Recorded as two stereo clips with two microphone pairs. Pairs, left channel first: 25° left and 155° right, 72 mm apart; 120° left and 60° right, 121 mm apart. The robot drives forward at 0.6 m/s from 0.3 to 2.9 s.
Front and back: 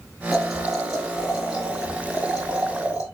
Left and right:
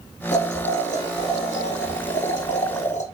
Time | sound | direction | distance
0.3 | boiling | 115° left | 3.5 m